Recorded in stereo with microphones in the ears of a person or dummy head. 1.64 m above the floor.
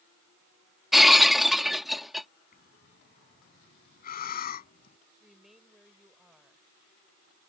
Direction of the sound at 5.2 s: Centre (ahead or behind).